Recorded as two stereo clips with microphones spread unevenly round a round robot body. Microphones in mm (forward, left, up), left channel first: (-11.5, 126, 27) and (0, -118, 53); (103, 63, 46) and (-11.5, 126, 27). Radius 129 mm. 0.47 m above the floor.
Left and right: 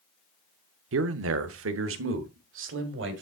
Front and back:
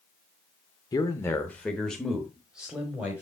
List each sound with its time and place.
0.9 s a man speaking: 95° right, 0.9 m; by 3.2 s 130° right, 2 m